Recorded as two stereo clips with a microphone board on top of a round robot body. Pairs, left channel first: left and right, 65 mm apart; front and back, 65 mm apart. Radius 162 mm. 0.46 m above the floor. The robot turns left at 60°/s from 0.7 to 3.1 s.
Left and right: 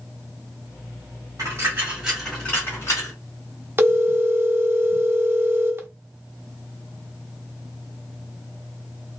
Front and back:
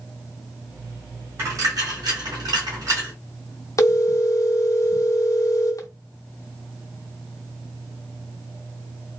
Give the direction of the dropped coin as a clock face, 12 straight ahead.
4 o'clock.